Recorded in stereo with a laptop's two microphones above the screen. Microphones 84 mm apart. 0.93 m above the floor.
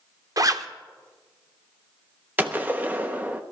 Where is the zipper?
45° right (ahead or behind), 0.7 m.